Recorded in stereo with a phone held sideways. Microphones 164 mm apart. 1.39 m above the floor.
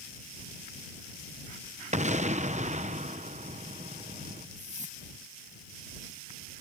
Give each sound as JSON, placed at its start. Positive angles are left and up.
{"t": 1.9, "sound": "an explosion", "side_deg": -45}
{"t": 4.6, "sound": "a whoosh", "side_deg": -45}